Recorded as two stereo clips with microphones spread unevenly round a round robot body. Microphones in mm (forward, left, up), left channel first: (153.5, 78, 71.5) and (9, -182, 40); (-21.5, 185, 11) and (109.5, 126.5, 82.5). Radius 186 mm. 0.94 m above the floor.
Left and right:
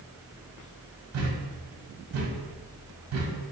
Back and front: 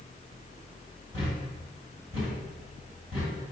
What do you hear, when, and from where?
1.1 s a thud: 85° right, 1.5 m